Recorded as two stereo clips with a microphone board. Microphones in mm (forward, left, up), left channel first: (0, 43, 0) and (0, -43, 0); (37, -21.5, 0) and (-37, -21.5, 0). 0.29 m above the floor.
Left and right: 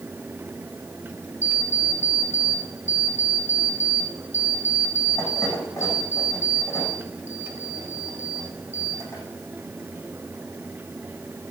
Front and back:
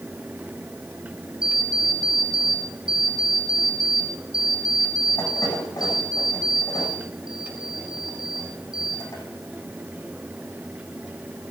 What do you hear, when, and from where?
1.4 s an alarm clock: 30° left, 8.5 m